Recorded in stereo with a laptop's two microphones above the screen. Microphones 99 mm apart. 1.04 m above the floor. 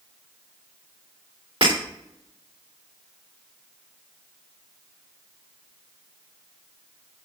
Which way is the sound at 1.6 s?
65° right (ahead or behind).